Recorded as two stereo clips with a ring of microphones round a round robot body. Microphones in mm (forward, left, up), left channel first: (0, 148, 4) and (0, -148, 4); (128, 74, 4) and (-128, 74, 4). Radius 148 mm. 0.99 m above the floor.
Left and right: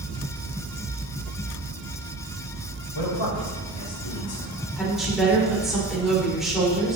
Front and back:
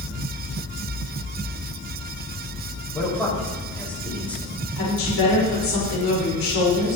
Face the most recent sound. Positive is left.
turn(degrees=0)